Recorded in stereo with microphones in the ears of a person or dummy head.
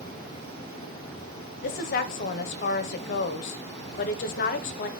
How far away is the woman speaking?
About 0.8 m.